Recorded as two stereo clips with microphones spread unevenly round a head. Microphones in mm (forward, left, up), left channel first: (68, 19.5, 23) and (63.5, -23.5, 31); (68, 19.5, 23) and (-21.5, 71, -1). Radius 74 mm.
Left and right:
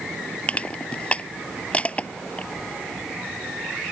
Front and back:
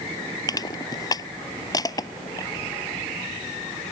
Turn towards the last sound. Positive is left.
turn(degrees=20)